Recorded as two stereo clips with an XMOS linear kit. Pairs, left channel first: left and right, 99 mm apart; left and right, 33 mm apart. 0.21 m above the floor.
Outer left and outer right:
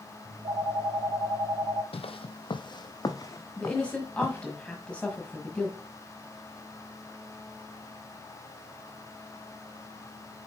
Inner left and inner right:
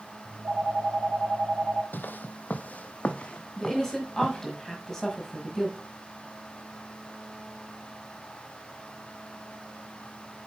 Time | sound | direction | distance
0.2 | a phone ringing | 50° right (ahead or behind) | 1.1 m
1.9 | footsteps | 75° left (ahead or behind) | 0.5 m
3.6 | a woman speaking | 10° left (ahead or behind) | 1.4 m